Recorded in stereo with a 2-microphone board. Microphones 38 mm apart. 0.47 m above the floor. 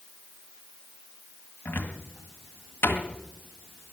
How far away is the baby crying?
No baby crying in this recording.